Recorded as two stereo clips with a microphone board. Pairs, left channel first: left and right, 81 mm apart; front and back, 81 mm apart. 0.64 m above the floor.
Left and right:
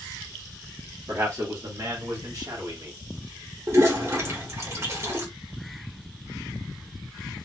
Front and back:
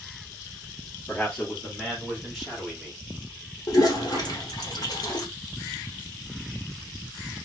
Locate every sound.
1.1 s a man speaking: 60° right, 1.5 m; by 3.0 s 100° right, 2 m
3.7 s a toilet flushing: 40° right, 1.2 m